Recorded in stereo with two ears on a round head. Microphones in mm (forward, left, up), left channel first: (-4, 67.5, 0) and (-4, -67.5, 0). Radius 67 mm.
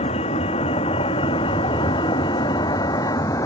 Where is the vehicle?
40° left (ahead or behind); by 3.5 s 20° left (ahead or behind).